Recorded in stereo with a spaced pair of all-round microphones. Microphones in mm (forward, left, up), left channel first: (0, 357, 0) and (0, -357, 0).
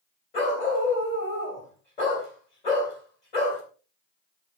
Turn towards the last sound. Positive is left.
turn(degrees=75)  # may be behind; listen again after turning